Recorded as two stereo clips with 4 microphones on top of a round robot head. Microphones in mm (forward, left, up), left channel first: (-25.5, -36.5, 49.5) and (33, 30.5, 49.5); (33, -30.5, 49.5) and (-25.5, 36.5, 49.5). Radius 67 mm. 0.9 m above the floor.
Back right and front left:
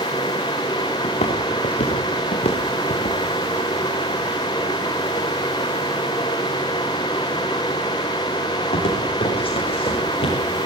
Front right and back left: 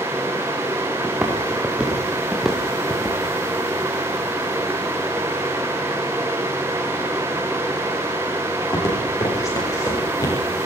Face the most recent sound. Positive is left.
turn(degrees=-105)